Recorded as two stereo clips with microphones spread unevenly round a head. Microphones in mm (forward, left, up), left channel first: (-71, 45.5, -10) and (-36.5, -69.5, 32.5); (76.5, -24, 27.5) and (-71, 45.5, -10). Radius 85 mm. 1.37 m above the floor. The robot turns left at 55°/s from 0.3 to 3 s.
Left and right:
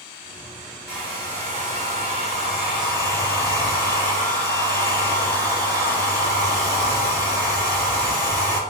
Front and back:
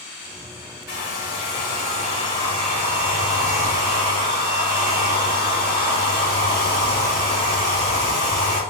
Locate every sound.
0.9 s a hair dryer: 15° right, 1.8 m; by 8.6 s 130° right, 1.8 m